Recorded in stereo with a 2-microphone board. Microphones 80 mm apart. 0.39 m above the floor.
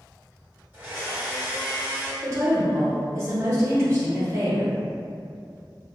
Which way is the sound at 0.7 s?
20° right (ahead or behind).